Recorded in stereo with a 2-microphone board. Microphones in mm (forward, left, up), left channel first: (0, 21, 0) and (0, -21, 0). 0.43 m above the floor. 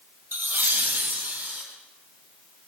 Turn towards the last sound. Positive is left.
turn(degrees=-55)  # may be behind; listen again after turning